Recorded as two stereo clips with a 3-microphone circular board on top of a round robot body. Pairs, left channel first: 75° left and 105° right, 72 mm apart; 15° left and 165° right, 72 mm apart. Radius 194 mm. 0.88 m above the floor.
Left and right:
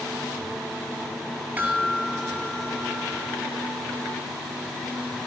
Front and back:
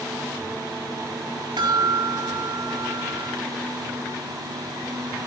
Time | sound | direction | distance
1.6 | a chime | 175° right | 6 m